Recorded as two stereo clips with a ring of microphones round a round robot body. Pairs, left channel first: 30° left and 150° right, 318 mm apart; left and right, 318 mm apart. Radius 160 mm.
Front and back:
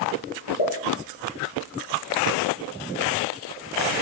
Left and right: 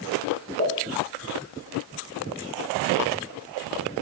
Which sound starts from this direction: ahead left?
A pop, at 0.6 s.